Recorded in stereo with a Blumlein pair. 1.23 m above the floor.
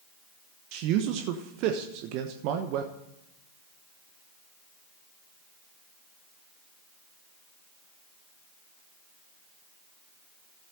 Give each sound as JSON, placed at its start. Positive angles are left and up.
{"t": 0.7, "sound": "a man speaking", "azimuth_deg": -40, "distance_m": 1.1}